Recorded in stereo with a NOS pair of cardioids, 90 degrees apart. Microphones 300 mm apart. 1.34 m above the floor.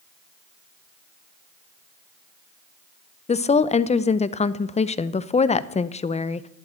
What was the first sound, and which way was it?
A woman speaking, 25° left.